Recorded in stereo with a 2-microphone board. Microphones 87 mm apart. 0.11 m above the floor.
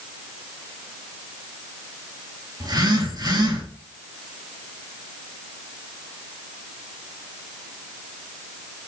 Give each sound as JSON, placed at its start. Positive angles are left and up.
{"t": 2.6, "sound": "a phone buzzing", "side_deg": -50, "distance_m": 2.5}